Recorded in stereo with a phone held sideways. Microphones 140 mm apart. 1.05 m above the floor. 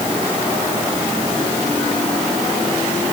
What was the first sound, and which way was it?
Only background noise.